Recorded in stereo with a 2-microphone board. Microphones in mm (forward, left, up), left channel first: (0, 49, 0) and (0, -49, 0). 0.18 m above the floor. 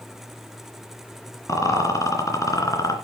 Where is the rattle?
35° left (ahead or behind), 3 m.